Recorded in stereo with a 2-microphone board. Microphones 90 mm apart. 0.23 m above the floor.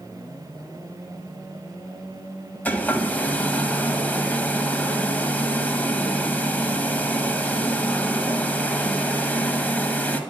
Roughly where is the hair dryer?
Centre.